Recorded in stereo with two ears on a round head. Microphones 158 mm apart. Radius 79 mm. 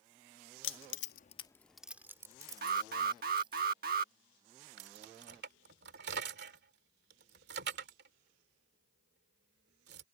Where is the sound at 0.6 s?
80° left; by 3.6 s 30° right (ahead or behind).